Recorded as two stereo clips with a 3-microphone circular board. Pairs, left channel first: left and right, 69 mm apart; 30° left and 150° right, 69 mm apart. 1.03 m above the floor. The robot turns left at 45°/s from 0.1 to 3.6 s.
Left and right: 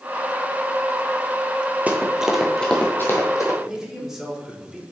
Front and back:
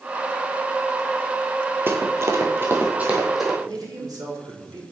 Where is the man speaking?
175° right, 2 m.